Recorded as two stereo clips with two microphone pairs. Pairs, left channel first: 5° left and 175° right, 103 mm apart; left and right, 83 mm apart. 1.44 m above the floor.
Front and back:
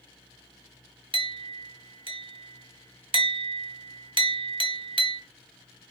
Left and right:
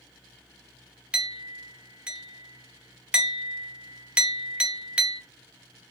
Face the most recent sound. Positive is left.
turn(degrees=-170)